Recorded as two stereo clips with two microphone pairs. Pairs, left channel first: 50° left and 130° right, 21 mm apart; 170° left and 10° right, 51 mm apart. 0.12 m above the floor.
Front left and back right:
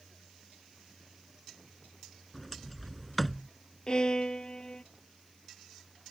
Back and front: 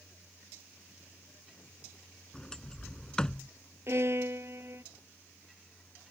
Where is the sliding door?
125° left.